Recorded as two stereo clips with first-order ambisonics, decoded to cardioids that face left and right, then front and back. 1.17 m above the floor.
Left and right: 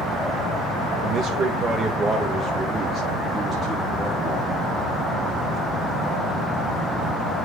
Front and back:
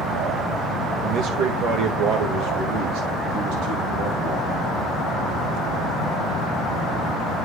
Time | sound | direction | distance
1.0 | a man speaking | 140° right | 1.1 m